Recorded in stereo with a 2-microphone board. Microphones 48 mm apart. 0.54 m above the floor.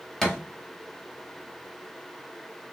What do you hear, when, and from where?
0.2 s a thud: 5° left (ahead or behind), 1.0 m